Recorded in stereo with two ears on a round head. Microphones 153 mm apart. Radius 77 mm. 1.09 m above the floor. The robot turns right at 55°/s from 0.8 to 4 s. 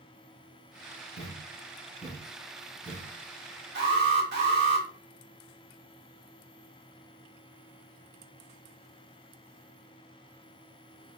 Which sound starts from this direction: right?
An alarm, at 3.8 s.